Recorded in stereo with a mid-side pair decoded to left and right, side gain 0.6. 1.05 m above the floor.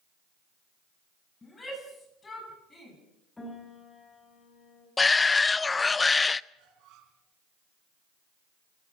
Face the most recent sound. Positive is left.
turn(degrees=-65)